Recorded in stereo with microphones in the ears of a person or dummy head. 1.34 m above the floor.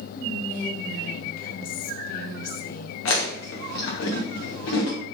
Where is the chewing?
65° left (ahead or behind), 0.8 m.